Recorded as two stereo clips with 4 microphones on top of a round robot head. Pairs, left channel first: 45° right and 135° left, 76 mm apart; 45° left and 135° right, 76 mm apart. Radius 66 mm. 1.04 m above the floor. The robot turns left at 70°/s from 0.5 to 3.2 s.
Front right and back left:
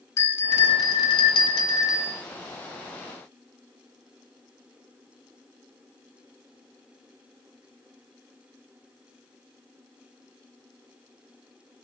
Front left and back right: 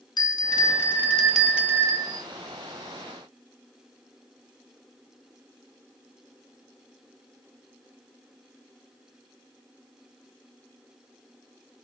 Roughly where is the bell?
Ahead.